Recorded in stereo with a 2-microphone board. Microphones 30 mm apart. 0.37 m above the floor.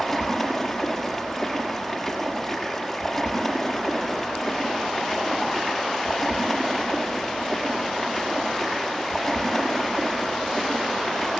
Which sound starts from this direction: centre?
Running water, at 0.0 s.